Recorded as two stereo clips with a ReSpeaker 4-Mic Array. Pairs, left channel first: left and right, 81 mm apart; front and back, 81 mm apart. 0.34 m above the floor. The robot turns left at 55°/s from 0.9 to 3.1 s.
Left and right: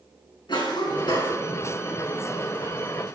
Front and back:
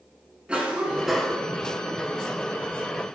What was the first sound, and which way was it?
A cough, 105° left.